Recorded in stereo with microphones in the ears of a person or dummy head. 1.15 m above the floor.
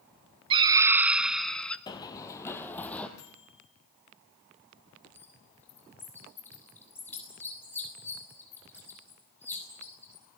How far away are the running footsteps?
About 1.7 m.